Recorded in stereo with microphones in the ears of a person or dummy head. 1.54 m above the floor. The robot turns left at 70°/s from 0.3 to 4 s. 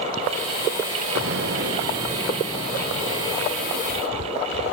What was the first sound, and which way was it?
An explosion, 90° right.